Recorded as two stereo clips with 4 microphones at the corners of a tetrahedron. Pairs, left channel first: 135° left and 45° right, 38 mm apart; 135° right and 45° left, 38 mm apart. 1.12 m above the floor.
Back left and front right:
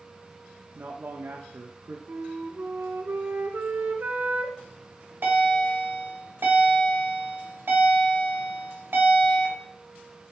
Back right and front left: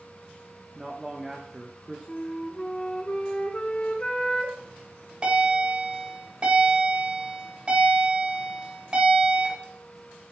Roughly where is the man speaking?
Ahead right.